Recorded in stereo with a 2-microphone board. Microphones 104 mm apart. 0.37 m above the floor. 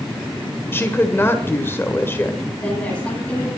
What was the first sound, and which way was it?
A woman speaking, 20° left (ahead or behind).